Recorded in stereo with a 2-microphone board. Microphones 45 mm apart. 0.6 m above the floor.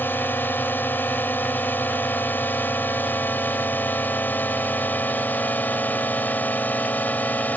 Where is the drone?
55° left (ahead or behind); by 7.6 s 40° left (ahead or behind).